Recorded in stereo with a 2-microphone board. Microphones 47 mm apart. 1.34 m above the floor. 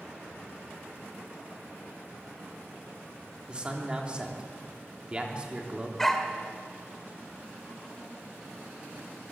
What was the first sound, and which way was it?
A man speaking, 20° right (ahead or behind).